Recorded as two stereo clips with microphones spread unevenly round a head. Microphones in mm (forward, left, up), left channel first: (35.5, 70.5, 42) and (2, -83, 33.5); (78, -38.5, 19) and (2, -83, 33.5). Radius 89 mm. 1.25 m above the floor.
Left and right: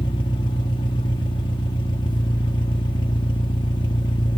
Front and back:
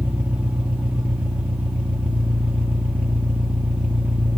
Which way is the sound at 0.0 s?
135° left.